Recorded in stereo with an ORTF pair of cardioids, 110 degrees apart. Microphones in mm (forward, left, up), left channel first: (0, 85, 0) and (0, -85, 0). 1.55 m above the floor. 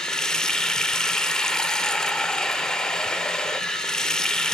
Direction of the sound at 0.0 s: 5° left.